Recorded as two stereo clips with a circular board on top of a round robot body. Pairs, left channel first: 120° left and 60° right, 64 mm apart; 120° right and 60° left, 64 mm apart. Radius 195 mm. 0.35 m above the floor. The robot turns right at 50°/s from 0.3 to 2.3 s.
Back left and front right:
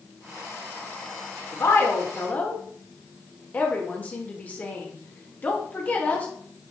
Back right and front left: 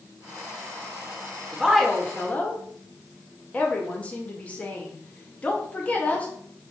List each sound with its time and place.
1.5 s a woman speaking: 140° left, 1.9 m; by 6.3 s straight behind, 1.9 m